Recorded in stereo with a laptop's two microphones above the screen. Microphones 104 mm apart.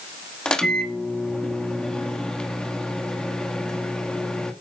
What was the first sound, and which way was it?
A microwave, 10° left (ahead or behind).